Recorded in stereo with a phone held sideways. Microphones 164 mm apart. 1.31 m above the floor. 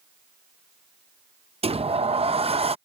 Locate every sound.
1.6 s a sliding door: 35° right (ahead or behind)